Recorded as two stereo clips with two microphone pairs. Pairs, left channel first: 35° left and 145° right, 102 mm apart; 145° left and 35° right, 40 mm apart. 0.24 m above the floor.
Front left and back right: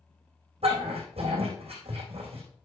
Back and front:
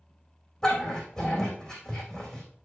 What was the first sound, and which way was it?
A dog barking, 135° right.